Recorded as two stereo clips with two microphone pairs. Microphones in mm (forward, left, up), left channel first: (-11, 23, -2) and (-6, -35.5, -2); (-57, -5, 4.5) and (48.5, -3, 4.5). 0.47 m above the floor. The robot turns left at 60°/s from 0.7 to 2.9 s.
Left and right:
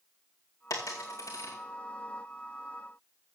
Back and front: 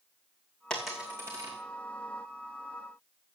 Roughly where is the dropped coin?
Left.